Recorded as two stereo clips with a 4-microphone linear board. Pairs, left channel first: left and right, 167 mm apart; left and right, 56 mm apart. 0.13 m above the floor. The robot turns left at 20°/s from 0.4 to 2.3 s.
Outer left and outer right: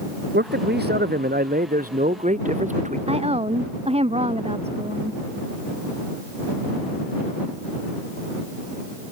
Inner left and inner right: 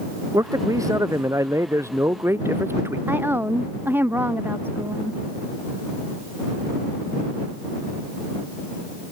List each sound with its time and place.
0.3 s a man speaking: 95° right; by 3.0 s 135° right
3.1 s a woman speaking: 35° right (ahead or behind)